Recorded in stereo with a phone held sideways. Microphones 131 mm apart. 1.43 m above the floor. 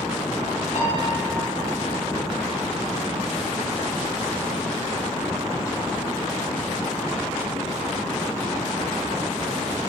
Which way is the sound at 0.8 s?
65° left (ahead or behind).